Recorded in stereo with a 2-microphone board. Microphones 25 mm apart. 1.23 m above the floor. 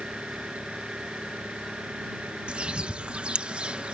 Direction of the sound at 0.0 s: 80° right.